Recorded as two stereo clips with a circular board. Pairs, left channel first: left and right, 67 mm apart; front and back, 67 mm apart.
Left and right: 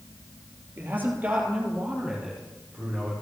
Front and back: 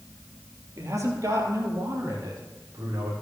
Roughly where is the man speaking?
Behind right.